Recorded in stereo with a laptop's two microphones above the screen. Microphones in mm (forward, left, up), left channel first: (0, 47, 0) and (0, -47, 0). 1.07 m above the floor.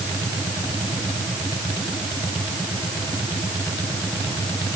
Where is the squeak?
I don't hear a squeak.